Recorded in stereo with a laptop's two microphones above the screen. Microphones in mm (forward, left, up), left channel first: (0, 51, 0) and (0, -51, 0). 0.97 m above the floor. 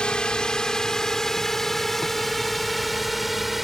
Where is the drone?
10° left (ahead or behind); by 3.6 s centre (ahead or behind).